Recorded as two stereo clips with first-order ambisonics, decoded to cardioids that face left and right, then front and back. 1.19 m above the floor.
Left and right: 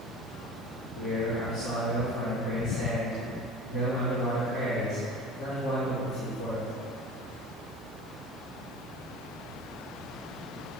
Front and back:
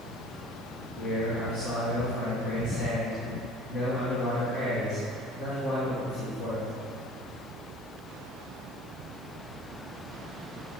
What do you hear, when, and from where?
0.9 s a man speaking: 60° left, 3 m